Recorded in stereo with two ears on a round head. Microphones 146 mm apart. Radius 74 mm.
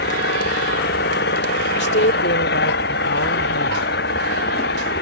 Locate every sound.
0.0 s an engine running: 70° left (ahead or behind)
1.8 s a woman speaking: 75° left (ahead or behind)